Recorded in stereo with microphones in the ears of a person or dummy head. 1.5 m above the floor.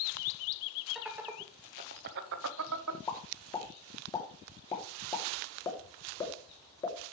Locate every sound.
0.9 s laughter: centre (ahead or behind), 0.9 m; by 3.0 s 85° right, 1.0 m
3.1 s a pop: 20° left (ahead or behind), 2.5 m